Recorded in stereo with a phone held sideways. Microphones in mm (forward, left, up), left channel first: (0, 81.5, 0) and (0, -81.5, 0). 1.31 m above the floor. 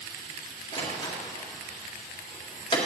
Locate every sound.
0.7 s a door slam: 30° left (ahead or behind), 1.9 m